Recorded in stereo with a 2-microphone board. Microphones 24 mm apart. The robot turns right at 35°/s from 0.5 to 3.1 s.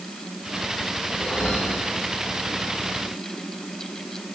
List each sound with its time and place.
1.1 s a whoosh: 25° left, 6 m; by 2.0 s 60° left, 6 m